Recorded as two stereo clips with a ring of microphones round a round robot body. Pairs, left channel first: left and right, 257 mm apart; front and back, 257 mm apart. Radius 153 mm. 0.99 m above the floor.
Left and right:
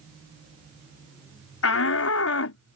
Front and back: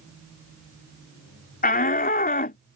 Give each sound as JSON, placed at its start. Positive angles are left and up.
{"t": 1.6, "sound": "a shout", "azimuth_deg": 55}